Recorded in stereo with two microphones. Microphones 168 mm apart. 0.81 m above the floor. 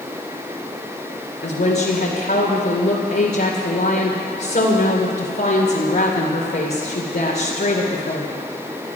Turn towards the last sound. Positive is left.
turn(degrees=65)  # may be behind; listen again after turning